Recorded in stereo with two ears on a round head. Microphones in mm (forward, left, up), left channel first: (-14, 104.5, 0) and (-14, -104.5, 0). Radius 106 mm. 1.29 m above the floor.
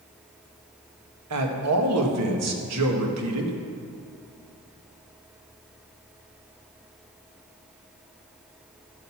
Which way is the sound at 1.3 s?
70° right (ahead or behind).